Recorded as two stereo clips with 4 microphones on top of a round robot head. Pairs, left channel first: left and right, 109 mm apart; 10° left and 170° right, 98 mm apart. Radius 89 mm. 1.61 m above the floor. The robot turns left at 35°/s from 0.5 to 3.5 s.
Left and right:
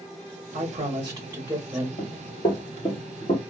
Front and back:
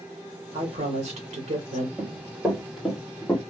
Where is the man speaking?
130° right, 1.4 m; by 1.9 s 175° right, 1.4 m.